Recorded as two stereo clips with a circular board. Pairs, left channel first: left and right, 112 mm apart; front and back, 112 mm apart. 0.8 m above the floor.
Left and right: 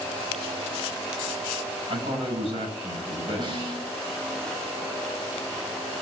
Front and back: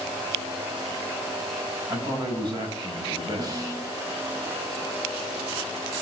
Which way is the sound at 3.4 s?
130° right.